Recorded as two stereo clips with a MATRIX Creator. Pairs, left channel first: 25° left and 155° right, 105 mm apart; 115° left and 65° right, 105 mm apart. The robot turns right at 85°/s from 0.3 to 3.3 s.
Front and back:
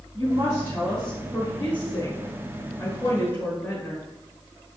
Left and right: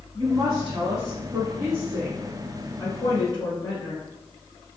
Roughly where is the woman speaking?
Behind right.